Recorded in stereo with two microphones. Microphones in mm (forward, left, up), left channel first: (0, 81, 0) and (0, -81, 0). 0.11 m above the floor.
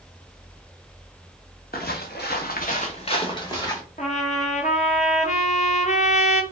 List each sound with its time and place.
1.7 s footsteps: 70° left (ahead or behind), 1.0 m; by 3.8 s 20° left (ahead or behind), 1.6 m
4.0 s a trumpet: 45° left (ahead or behind), 0.6 m